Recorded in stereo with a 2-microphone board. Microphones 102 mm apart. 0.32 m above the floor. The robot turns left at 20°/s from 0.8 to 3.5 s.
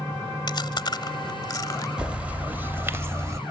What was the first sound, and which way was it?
Chewing, 45° left (ahead or behind).